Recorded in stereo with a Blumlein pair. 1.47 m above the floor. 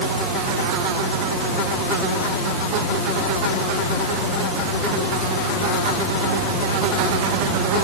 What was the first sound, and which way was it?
Only background noise.